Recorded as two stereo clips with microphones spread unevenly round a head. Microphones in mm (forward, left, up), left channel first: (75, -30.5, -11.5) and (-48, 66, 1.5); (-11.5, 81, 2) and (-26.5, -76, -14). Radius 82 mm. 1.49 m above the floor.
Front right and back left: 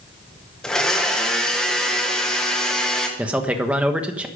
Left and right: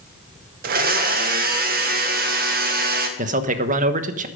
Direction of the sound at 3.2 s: 135° right.